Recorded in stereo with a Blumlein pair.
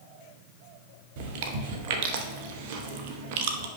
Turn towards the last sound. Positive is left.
turn(degrees=-50)